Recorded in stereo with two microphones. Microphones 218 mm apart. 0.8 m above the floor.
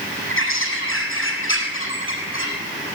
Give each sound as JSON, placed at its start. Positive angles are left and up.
{"t": 0.3, "sound": "a bird", "side_deg": 70, "distance_m": 6.0}